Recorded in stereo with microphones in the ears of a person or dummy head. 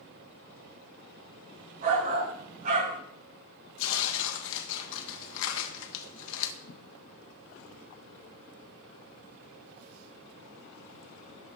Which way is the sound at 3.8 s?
80° left.